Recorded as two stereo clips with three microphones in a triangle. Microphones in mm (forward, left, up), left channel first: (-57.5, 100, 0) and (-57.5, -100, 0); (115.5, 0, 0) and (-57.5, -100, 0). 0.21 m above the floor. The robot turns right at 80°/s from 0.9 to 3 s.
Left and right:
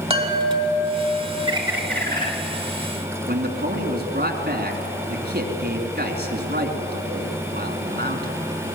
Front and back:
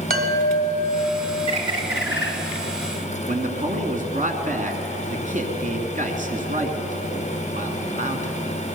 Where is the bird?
30° right, 2.5 m; by 2.3 s 40° left, 2.5 m.